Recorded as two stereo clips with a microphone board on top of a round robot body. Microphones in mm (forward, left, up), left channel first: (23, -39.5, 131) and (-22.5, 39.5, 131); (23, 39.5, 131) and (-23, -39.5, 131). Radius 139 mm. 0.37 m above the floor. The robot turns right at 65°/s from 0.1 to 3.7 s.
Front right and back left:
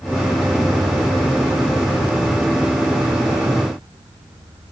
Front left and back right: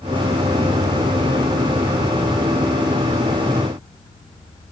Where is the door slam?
No door slam in this recording.